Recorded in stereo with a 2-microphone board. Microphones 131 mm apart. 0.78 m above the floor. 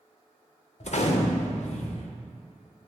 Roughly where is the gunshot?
Left.